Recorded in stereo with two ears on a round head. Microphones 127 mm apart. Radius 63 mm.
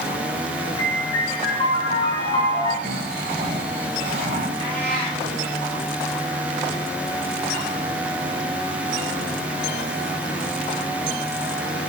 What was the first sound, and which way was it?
A piano, 40° left (ahead or behind).